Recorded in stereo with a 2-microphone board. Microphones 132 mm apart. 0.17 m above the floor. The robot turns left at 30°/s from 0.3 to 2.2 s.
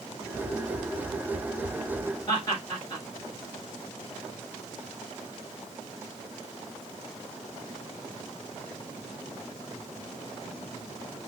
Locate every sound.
2.3 s laughter: 30° left (ahead or behind), 3 m